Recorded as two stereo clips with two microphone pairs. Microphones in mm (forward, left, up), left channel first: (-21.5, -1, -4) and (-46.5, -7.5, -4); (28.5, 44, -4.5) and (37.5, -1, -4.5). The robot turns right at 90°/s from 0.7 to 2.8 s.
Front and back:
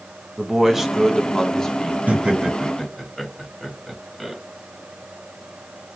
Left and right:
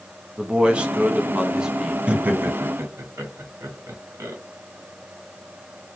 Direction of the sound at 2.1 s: 140° right.